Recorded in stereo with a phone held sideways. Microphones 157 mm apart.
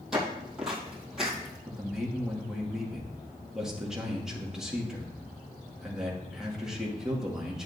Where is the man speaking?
5° right (ahead or behind), 2 m.